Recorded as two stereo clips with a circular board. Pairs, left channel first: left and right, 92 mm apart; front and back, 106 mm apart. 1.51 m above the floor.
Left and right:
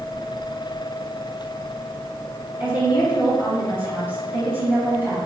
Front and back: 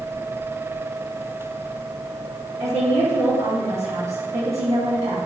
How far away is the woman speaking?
About 2.0 m.